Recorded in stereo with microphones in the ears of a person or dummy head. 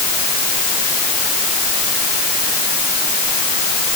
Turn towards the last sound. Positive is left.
No sound to turn to.